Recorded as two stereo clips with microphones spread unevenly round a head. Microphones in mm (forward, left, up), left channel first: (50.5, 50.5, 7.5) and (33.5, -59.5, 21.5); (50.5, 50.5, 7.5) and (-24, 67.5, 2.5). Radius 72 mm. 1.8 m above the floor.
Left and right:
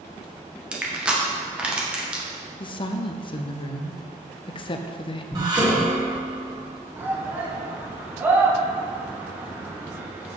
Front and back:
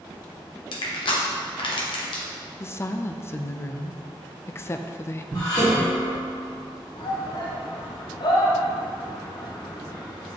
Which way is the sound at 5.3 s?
55° right.